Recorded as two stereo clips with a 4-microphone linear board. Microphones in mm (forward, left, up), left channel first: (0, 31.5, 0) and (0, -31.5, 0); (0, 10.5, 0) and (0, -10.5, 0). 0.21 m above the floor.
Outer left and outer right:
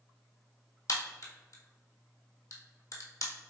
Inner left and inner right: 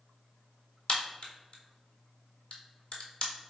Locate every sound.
0.9 s a crack: 55° left (ahead or behind), 1.2 m